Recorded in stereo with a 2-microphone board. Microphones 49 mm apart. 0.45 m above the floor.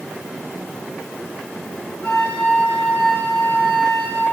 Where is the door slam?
No door slam in this recording.